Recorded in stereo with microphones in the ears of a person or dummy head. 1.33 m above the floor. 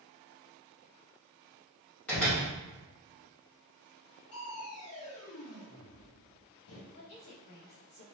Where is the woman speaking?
65° left (ahead or behind), 1.1 m.